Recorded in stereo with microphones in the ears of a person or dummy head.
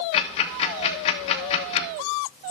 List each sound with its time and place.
0.1 s ticking: 35° left (ahead or behind), 1.1 m